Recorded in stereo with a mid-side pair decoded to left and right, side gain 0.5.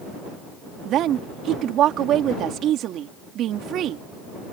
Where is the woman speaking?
65° right.